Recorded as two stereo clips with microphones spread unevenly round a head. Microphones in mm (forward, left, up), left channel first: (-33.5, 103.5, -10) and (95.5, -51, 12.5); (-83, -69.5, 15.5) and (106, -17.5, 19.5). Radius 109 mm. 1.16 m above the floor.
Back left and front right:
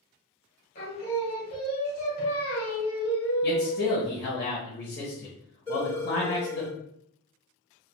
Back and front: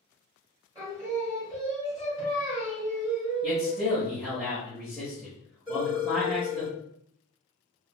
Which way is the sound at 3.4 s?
100° left.